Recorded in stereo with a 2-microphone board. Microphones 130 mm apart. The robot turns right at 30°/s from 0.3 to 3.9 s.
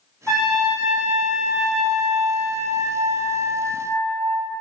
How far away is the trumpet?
About 1.6 m.